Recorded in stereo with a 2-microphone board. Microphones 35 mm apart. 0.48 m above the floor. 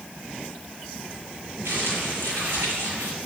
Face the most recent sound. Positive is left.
turn(degrees=-85)